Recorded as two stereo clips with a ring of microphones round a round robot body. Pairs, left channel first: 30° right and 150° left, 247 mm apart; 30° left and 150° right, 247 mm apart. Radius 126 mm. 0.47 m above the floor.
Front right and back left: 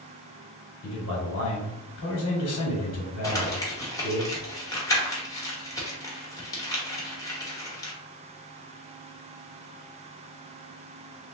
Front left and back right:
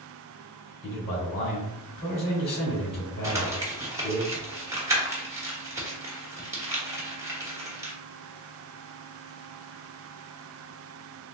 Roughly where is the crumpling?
Right.